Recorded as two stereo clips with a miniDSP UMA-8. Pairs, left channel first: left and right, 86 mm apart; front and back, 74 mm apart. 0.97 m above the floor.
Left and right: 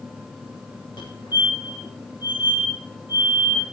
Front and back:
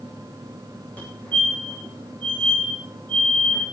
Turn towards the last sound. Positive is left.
turn(degrees=70)